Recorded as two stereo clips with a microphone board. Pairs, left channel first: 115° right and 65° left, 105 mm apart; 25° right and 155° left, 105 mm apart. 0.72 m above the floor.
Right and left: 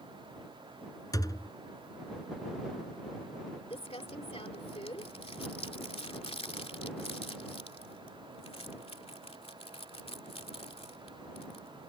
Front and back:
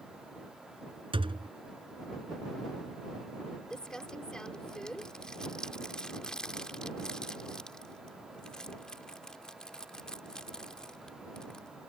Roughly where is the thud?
Behind.